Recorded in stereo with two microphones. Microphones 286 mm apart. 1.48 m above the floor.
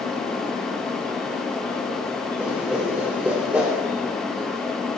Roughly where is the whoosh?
Centre.